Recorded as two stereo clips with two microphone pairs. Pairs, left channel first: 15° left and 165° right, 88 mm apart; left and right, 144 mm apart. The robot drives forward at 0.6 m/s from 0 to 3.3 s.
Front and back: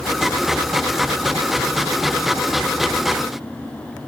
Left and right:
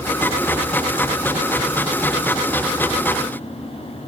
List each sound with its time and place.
Only background noise.